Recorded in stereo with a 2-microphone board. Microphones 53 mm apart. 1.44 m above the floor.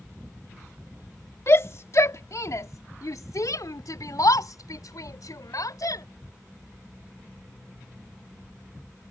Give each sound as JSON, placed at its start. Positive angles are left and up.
{"t": 1.5, "sound": "a shout", "side_deg": 50}